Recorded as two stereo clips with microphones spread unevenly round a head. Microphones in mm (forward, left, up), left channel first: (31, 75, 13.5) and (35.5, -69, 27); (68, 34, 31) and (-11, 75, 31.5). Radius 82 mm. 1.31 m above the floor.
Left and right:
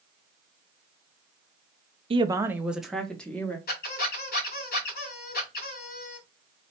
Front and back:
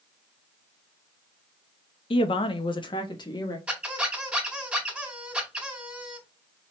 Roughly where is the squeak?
Left.